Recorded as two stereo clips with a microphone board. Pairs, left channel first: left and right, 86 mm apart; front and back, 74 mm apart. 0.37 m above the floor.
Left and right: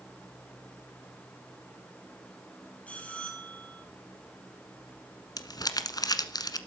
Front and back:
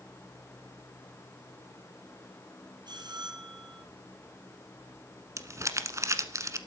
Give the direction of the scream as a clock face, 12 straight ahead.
No scream in this recording.